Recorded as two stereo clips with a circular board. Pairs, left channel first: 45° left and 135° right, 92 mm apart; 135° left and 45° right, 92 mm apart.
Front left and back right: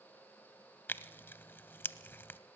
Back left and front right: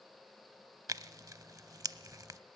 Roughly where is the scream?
I don't hear a scream.